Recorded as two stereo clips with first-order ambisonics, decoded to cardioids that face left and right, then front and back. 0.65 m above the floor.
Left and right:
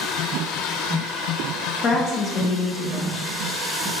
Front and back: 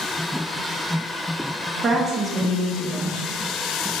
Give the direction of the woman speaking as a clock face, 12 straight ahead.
8 o'clock.